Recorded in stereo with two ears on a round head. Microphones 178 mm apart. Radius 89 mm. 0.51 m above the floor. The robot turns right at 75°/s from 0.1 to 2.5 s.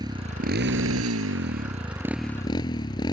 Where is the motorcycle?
160° right; by 3.1 s 20° left.